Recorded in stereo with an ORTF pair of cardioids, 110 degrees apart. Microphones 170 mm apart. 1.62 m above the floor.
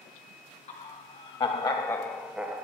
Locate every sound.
0.7 s laughter: 45° left, 1.3 m; by 2.6 s 20° right, 0.6 m